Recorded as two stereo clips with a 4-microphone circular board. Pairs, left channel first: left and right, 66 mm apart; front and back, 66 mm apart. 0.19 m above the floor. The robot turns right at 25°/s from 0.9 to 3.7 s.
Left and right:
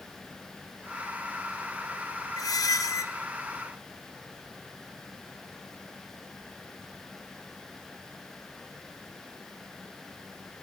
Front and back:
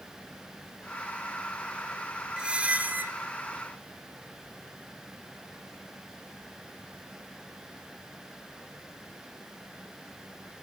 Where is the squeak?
105° left, 0.7 m; by 3.1 s 125° left, 0.7 m.